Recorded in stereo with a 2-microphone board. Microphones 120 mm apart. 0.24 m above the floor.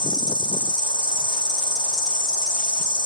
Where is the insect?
40° right (ahead or behind), 1.1 m.